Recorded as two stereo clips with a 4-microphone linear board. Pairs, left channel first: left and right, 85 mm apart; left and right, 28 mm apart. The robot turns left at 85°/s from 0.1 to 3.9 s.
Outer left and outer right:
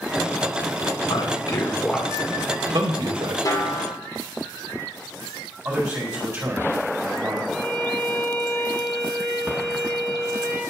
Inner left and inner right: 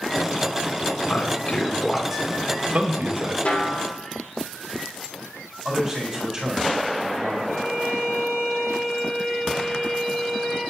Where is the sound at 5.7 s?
15° right (ahead or behind), 3.5 m.